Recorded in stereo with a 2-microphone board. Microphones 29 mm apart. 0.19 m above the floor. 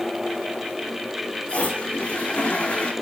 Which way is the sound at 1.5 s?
40° left (ahead or behind).